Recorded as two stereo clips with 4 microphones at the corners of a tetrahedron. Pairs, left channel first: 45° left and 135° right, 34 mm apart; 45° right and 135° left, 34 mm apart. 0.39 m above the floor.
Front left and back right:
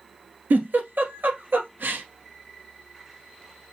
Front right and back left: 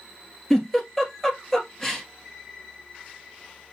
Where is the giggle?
130° right, 1.6 m.